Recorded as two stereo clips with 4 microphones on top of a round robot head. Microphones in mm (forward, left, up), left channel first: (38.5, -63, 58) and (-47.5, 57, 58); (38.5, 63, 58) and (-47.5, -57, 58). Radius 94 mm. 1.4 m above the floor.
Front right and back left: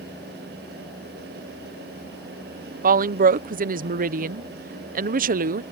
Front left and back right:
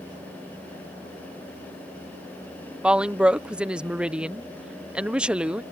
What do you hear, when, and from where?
2.8 s a woman speaking: 150° left